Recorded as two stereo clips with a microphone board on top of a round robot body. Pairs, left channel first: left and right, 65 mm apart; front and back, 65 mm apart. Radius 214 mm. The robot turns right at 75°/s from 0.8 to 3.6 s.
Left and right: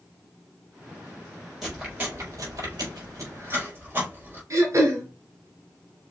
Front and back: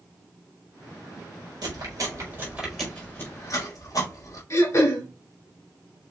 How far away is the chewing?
About 5 m.